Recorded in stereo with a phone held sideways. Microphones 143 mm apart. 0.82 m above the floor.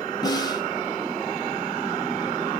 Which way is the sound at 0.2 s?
25° left (ahead or behind).